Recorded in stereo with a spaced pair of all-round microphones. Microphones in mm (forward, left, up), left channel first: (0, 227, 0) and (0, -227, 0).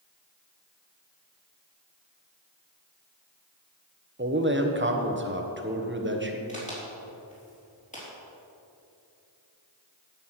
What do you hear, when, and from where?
4.2 s a man speaking: 25° right (ahead or behind), 1.2 m
6.5 s a crack: 15° left (ahead or behind), 3.5 m